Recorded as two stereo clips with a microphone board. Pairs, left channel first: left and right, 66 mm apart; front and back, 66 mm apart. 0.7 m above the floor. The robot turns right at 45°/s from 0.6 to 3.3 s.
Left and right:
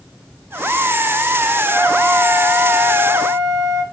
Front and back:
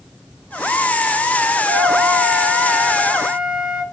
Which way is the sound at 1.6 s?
30° left.